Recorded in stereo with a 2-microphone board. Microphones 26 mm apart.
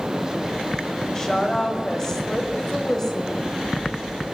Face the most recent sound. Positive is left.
turn(degrees=20)  # may be behind; listen again after turning